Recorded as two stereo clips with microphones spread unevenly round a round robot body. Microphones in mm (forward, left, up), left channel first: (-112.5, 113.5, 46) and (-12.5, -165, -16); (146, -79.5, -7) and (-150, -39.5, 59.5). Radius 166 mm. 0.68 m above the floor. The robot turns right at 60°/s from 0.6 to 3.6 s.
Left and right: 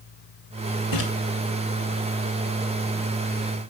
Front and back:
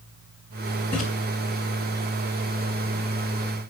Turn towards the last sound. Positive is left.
turn(degrees=-125)